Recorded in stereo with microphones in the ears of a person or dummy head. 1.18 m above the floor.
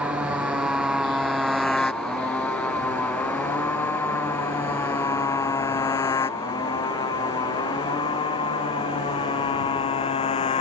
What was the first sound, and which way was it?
A motorcycle, 10° right (ahead or behind).